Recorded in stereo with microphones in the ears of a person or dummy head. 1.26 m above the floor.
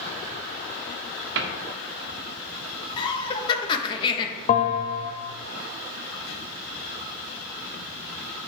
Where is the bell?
50° left (ahead or behind), 1.7 m.